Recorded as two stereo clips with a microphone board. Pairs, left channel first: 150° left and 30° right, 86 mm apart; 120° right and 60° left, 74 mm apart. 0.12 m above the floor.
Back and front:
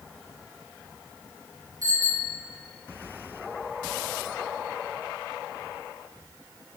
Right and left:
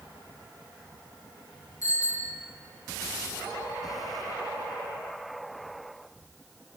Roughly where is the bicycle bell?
Right.